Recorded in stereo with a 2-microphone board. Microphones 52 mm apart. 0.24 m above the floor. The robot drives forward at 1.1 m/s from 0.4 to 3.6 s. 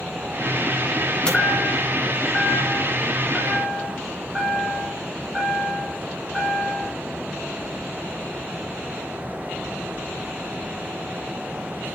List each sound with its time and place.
1.2 s a chime: 15° left (ahead or behind), 2.5 m; by 6.9 s 10° left (ahead or behind), 5 m